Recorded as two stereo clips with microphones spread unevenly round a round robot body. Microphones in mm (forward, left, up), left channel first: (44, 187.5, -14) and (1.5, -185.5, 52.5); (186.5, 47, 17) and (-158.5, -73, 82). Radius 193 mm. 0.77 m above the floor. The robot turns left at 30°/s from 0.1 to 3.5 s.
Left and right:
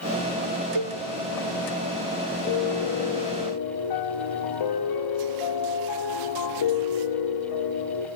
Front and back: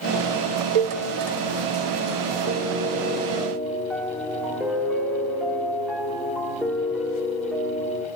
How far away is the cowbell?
About 0.8 m.